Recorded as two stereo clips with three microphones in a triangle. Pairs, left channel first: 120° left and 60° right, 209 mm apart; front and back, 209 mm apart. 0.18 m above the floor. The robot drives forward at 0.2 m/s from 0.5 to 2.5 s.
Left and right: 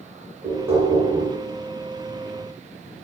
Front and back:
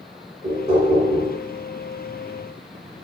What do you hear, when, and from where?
0.4 s knocking: 135° right, 1.8 m; by 1.3 s 140° right, 1.9 m